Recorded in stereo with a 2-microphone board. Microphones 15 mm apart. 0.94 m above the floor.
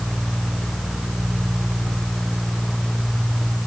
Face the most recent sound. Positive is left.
No sound to turn to.